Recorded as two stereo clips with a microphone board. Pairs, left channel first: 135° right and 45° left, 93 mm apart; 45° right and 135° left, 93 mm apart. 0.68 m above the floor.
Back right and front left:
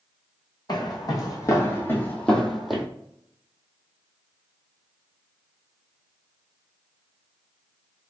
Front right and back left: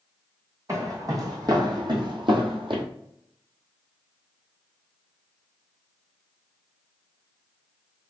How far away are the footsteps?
About 1.7 m.